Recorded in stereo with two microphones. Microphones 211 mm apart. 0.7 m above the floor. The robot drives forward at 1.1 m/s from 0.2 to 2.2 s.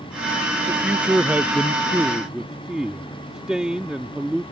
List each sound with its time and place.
0.7 s a man speaking: 5° right (ahead or behind)